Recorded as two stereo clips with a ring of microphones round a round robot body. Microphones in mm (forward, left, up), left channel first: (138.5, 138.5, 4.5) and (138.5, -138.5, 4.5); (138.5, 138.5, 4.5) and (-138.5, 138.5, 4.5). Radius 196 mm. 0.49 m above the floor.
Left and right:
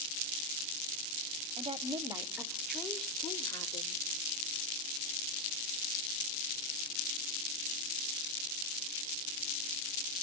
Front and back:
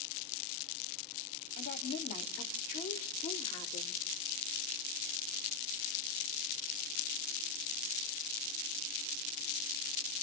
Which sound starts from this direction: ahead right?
A woman speaking, at 1.6 s.